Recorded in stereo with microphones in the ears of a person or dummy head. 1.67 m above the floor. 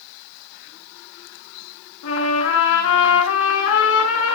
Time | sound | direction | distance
2.0 | a trumpet | 70° left (ahead or behind) | 6.5 m